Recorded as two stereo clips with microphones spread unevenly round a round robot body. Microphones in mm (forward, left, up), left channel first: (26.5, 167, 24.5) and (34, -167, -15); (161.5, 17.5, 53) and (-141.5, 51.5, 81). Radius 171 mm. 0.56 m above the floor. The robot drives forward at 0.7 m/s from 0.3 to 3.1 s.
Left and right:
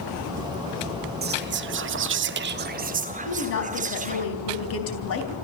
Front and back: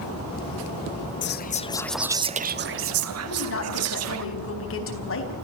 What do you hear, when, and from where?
1.2 s whispering: 40° right, 0.9 m; by 4.2 s 150° right, 1.1 m
3.2 s a woman speaking: 40° left, 4.5 m